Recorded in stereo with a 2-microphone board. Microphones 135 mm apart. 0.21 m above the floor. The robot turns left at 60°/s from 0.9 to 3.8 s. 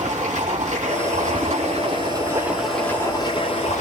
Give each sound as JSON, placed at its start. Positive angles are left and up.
{"t": 0.0, "sound": "running water", "azimuth_deg": -75, "distance_m": 5.5}